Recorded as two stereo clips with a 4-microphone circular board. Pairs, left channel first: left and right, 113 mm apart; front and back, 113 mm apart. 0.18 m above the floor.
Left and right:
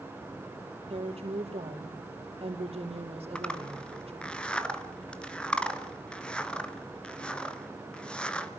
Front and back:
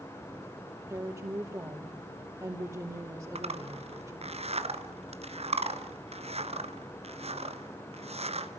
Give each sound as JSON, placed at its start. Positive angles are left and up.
{"t": 0.9, "sound": "a woman speaking", "azimuth_deg": -115, "distance_m": 5.0}
{"t": 3.4, "sound": "a zipper", "azimuth_deg": 170, "distance_m": 1.4}